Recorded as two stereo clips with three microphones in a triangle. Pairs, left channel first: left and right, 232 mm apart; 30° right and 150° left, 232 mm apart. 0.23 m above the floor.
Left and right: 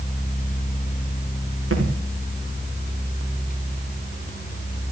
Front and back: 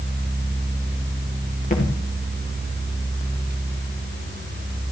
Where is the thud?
85° right, 5.5 m.